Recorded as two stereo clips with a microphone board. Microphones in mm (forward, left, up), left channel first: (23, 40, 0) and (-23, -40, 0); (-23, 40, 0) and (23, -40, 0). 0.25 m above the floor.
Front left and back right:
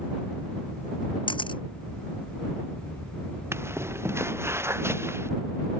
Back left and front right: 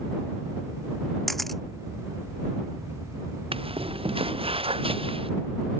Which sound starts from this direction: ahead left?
A camera shutter, at 1.3 s.